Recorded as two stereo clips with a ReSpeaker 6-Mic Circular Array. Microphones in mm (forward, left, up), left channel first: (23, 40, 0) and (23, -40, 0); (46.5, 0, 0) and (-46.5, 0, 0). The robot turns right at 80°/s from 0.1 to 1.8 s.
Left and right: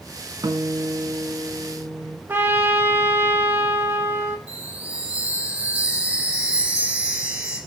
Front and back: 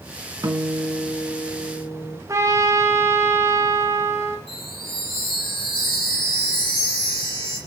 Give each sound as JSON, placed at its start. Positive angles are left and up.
{"t": 0.4, "sound": "a guitar", "azimuth_deg": -125, "distance_m": 1.5}
{"t": 2.3, "sound": "a trumpet", "azimuth_deg": -145, "distance_m": 1.8}
{"t": 4.5, "sound": "a chime", "azimuth_deg": -15, "distance_m": 7.5}